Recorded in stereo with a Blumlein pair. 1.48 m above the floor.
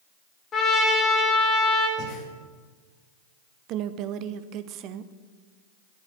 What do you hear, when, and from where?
0.5 s a trumpet: 25° left, 2 m
2.0 s breathing: 35° left, 2.0 m
3.7 s a woman speaking: 40° right, 0.6 m